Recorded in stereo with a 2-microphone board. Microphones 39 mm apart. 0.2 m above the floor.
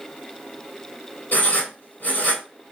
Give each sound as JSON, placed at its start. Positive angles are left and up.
{"t": 1.3, "sound": "writing", "side_deg": 50, "distance_m": 1.7}